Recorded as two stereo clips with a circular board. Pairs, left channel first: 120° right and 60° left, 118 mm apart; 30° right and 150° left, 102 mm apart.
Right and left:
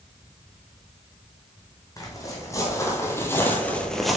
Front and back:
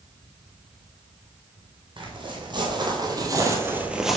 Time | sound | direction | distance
2.0 | footsteps | straight behind | 2.0 m